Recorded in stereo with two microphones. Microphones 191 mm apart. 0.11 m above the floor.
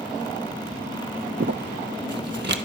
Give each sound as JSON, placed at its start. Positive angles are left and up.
{"t": 1.4, "sound": "crumpling", "side_deg": -65, "distance_m": 0.7}